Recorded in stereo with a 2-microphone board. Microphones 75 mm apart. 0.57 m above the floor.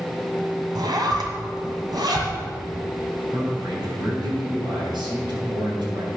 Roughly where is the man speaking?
Right.